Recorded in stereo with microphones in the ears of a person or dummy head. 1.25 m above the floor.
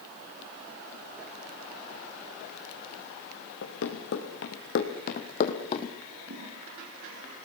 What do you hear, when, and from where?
3.6 s running footsteps: 70° left (ahead or behind), 5 m; by 6.0 s 25° left (ahead or behind), 3 m
6.1 s a toilet flushing: 50° right (ahead or behind), 9.5 m